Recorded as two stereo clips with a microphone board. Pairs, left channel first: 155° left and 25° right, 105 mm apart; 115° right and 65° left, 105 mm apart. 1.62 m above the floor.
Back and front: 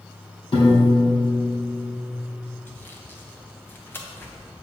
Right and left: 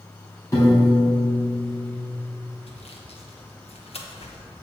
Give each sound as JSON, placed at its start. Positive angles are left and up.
{"t": 0.5, "sound": "a piano", "azimuth_deg": -170, "distance_m": 3.0}
{"t": 2.7, "sound": "sawing", "azimuth_deg": -130, "distance_m": 1.1}